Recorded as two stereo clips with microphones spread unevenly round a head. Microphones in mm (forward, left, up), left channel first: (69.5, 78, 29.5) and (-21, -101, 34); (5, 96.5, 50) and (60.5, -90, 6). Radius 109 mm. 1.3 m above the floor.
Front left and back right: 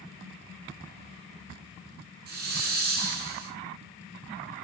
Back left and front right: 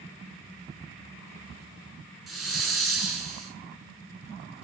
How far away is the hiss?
About 7 m.